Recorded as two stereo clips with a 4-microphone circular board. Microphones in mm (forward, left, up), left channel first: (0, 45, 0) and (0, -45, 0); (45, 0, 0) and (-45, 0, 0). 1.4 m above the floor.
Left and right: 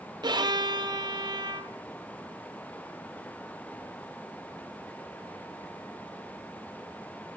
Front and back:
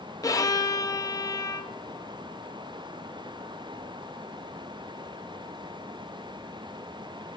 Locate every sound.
0.2 s a violin: 50° right, 0.6 m